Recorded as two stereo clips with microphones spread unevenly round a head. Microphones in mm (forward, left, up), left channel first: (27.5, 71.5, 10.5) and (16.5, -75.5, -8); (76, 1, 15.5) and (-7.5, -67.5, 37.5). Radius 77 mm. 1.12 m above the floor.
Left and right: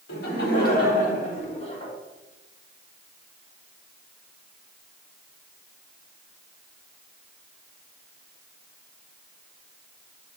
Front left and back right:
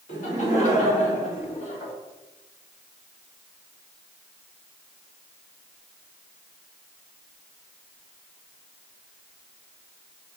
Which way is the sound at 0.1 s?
70° left.